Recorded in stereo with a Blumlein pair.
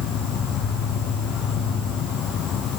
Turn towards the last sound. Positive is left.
turn(degrees=30)